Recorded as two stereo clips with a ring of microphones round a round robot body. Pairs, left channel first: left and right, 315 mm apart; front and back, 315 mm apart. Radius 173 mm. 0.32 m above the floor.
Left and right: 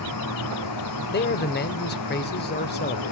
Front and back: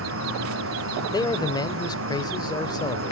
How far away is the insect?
About 4.5 m.